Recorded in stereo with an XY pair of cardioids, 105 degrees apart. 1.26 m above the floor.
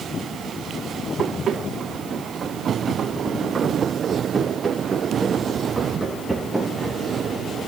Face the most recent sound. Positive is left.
turn(degrees=0)